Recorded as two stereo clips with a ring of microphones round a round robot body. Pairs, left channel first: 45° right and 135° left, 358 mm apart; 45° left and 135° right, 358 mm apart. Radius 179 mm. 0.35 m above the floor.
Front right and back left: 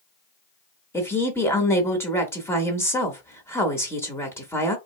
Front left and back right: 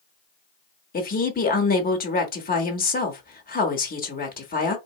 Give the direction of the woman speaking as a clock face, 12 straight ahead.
11 o'clock.